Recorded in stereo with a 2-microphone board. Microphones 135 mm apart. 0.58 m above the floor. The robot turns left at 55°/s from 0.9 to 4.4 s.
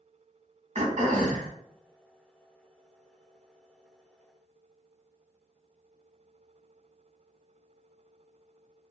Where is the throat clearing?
60° right, 0.9 m; by 1.5 s 90° right, 0.9 m.